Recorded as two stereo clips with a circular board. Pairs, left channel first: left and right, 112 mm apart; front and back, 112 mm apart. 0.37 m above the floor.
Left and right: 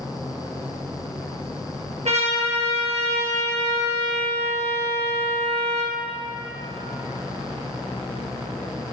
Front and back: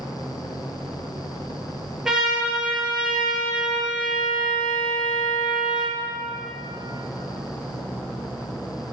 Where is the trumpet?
95° right, 4 m.